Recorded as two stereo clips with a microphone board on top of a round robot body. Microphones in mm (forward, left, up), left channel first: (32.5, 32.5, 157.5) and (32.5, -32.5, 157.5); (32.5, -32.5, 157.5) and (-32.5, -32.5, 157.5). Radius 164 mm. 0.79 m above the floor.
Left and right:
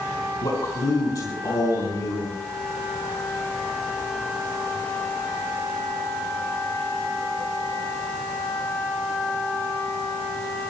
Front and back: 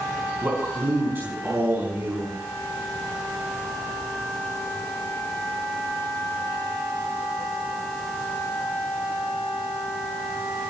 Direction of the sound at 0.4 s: 120° left.